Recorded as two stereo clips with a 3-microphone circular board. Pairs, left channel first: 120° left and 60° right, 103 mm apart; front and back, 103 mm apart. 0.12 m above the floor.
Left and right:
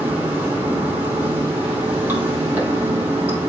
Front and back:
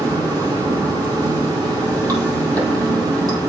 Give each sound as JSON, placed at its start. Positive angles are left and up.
{"t": 0.0, "sound": "running water", "azimuth_deg": -130, "distance_m": 3.0}